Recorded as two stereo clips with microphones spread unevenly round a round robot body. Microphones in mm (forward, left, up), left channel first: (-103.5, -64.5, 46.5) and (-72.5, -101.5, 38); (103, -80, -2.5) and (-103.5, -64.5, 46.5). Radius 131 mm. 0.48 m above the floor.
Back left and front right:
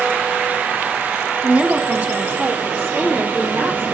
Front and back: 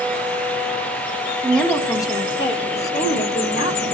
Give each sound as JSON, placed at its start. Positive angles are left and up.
{"t": 1.4, "sound": "a woman speaking", "azimuth_deg": -75, "distance_m": 1.5}